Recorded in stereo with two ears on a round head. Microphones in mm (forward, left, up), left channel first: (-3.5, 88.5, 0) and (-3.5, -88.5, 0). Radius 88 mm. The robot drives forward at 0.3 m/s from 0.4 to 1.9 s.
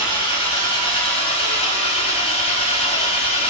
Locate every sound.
0.0 s an engine running: 25° left (ahead or behind), 3.5 m; by 3.5 s 30° left (ahead or behind), 3 m